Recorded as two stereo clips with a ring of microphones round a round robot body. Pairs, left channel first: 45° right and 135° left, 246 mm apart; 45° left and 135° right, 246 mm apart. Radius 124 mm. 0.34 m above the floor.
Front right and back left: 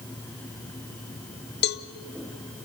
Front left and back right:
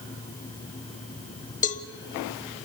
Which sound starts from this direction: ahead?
A cowbell, at 1.6 s.